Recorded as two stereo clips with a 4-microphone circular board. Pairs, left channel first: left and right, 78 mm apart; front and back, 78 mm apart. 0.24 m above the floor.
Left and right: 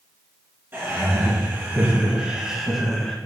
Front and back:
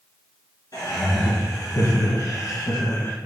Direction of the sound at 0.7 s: 35° right.